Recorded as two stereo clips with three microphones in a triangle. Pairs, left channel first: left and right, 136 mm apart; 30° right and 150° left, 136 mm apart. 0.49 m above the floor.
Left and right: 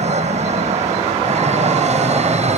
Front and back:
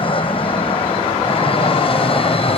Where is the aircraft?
70° right.